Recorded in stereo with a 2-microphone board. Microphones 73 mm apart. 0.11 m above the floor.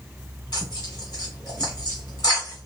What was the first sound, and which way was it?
Tearing paper, 55° left (ahead or behind).